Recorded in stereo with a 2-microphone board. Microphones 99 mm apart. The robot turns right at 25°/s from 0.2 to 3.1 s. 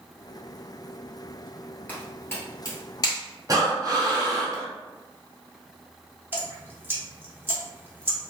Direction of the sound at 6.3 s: 20° right (ahead or behind).